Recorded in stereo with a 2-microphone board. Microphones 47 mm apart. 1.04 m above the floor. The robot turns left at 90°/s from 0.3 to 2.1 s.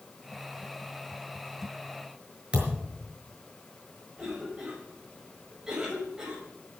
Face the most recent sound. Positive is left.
turn(degrees=-15)  # may be behind; listen again after turning